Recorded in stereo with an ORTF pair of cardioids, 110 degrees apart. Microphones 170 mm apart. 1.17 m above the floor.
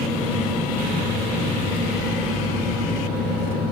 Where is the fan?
70° left, 3 m.